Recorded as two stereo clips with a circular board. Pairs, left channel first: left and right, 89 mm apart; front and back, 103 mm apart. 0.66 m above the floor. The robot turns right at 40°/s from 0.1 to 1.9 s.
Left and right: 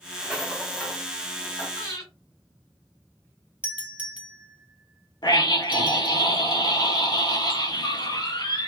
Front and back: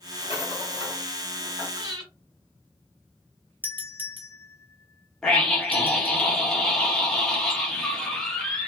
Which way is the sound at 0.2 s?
5° right.